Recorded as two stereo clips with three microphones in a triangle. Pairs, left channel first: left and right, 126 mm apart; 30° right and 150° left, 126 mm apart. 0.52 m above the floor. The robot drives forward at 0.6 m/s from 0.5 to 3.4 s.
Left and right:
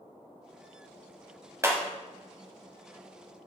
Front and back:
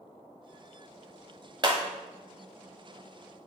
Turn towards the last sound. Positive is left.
turn(degrees=-170)